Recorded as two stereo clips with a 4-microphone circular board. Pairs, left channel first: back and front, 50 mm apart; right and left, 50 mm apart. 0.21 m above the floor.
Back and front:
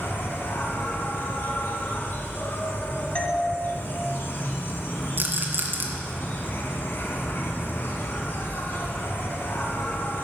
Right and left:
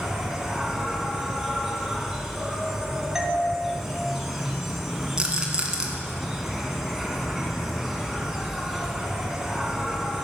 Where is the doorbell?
160° left, 1.6 m.